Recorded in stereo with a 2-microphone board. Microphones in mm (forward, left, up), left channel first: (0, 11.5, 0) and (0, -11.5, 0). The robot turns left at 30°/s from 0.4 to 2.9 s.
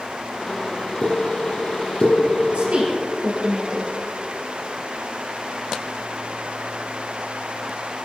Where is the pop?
50° left (ahead or behind), 2.5 m; by 2.2 s 35° left (ahead or behind), 2.5 m.